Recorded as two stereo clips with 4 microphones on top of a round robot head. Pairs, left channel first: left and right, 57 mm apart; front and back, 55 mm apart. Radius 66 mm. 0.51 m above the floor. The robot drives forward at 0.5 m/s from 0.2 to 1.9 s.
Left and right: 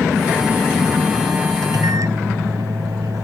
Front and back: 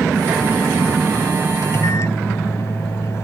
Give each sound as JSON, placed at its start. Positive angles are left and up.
{"t": 1.6, "sound": "a microwave", "azimuth_deg": -50}